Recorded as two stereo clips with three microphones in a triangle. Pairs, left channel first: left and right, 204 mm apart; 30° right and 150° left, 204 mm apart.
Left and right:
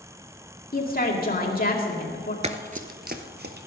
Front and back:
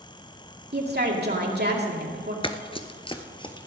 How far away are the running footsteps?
About 0.8 m.